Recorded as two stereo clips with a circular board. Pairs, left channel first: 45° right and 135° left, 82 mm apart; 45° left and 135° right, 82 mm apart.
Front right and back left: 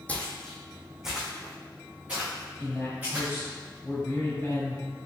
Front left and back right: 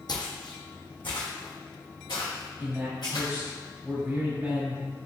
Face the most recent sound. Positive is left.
turn(degrees=-85)